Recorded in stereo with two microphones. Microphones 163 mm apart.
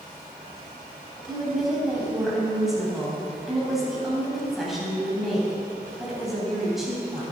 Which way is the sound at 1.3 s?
Centre (ahead or behind).